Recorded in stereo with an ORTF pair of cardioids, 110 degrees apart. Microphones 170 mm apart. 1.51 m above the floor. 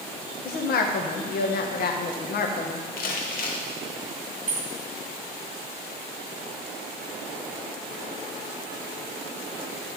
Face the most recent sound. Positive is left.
turn(degrees=-45)